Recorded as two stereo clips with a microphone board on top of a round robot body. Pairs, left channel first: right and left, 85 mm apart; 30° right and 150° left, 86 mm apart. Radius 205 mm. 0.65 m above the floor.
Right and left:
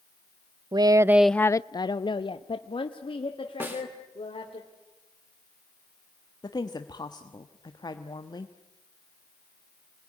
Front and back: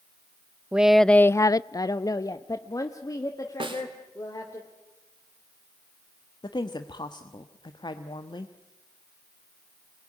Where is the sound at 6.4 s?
55° right, 1.3 m.